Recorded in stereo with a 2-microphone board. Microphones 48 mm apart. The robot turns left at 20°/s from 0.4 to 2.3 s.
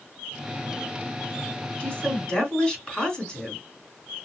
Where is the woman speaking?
25° left (ahead or behind), 3 m; by 3.6 s 15° left (ahead or behind), 3 m.